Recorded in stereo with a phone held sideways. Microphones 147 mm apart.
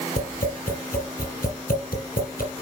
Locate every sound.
0.2 s tapping: 75° left (ahead or behind), 4 m